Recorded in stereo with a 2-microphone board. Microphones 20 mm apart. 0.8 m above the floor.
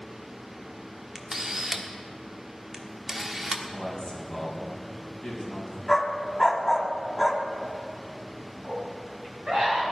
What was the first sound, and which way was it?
A camera shutter, 20° right (ahead or behind).